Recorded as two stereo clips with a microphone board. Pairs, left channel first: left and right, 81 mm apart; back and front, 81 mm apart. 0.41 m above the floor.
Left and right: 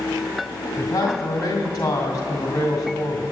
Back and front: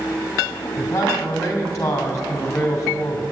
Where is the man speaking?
130° left, 2 m.